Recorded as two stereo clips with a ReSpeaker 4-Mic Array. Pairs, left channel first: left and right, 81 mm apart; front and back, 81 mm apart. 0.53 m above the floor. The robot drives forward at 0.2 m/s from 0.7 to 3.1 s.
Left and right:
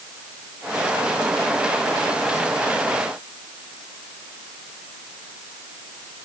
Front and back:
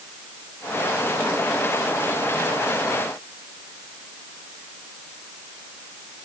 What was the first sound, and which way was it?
Only background noise.